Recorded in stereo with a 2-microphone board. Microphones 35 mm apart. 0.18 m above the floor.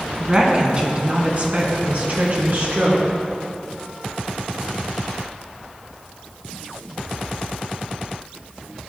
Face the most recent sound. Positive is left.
turn(degrees=-55)  # may be behind; listen again after turning